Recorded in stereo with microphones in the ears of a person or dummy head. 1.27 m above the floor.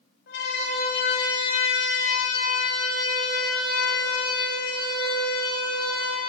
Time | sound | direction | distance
0.3 | a siren | 65° left (ahead or behind) | 7 m